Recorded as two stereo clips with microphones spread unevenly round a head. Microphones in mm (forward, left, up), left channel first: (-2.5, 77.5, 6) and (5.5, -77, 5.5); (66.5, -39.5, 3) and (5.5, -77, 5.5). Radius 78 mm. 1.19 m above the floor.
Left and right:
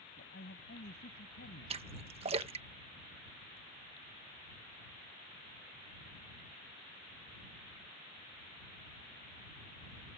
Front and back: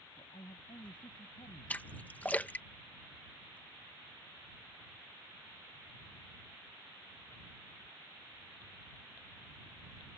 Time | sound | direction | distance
0.2 | a man speaking | 70° left | ?
1.7 | a splash | 35° right | ?